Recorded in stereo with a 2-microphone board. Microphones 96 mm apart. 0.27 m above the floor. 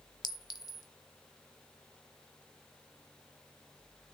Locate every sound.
0.2 s a clink: 45° left (ahead or behind), 1.0 m